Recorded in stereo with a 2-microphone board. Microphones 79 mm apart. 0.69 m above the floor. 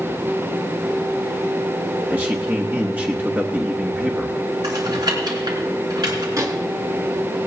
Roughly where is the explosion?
I don't hear an explosion.